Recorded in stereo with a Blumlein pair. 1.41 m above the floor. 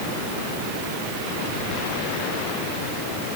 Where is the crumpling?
No crumpling in this recording.